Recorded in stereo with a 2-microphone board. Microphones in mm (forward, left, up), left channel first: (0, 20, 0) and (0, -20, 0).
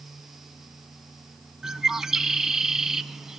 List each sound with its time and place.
1.6 s a bird: 10° right (ahead or behind), 0.5 m